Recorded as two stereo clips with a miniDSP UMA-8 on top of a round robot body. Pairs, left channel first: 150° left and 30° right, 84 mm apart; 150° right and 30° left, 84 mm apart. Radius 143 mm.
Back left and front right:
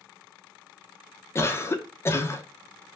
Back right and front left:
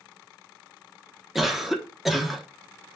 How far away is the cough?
About 1.0 m.